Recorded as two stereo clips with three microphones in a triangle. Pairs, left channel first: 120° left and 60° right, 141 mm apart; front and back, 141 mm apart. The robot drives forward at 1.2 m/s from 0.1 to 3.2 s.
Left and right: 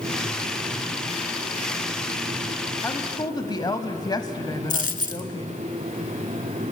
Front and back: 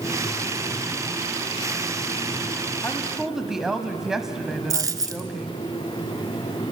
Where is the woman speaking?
55° left, 1.1 m; by 5.6 s 95° left, 1.1 m.